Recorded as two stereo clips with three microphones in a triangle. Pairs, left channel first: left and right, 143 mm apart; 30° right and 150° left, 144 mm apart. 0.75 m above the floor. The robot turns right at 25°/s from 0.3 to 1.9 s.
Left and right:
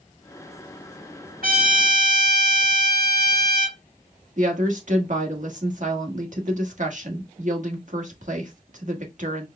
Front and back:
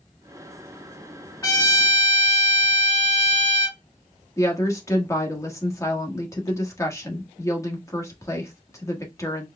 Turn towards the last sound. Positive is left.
turn(degrees=-95)